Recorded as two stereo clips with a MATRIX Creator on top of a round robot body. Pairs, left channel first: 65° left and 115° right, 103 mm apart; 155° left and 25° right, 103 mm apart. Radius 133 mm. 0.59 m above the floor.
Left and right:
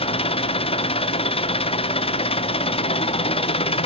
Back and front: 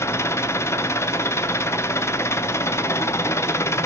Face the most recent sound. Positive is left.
turn(degrees=90)